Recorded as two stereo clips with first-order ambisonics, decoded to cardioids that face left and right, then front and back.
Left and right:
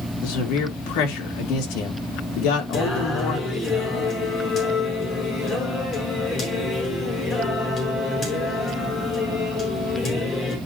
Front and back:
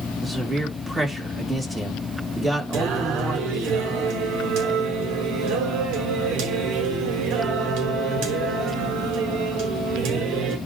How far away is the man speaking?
About 3 m.